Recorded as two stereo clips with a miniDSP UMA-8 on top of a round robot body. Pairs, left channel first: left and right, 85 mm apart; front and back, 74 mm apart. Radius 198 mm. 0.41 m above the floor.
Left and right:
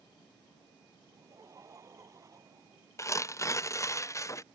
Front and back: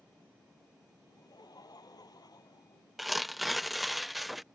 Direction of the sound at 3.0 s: 90° left.